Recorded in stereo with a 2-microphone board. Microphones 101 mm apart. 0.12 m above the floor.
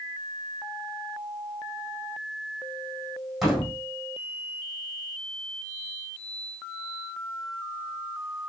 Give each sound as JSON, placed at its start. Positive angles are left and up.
{"t": 3.4, "sound": "a door slam", "side_deg": 0, "distance_m": 4.0}